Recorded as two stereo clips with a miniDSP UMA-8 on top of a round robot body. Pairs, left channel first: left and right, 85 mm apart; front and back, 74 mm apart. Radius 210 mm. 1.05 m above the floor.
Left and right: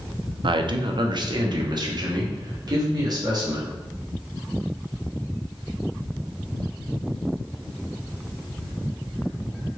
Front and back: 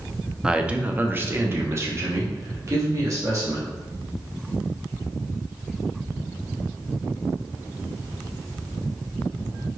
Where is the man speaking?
100° right, 0.6 m; by 3.8 s 135° right, 2 m.